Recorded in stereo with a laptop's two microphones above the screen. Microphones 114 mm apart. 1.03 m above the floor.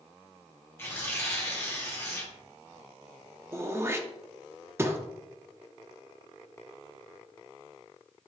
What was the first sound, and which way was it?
Tearing paper, 20° left (ahead or behind).